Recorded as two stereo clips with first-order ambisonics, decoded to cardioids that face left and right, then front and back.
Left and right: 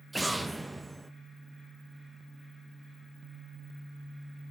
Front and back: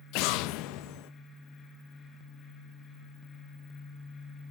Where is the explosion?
5° right, 0.7 m.